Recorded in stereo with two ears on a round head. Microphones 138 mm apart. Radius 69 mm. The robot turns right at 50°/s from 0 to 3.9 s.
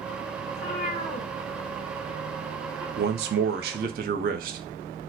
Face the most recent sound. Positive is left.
turn(degrees=-60)